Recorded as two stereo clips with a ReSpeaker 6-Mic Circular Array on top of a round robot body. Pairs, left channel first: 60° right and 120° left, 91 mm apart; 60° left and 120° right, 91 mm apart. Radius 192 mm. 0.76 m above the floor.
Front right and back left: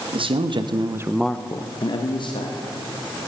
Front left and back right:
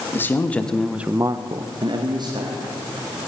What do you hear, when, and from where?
0.1 s a man speaking: 125° left, 1.8 m; by 3.2 s 80° right, 3 m